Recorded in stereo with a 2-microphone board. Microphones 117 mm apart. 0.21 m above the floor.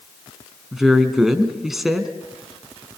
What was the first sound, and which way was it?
A woman speaking, 5° right (ahead or behind).